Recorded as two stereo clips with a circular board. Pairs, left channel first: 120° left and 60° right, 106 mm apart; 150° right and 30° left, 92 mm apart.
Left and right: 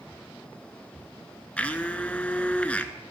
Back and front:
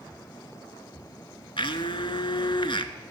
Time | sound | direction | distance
1.6 | a blender | 165° right | 0.8 m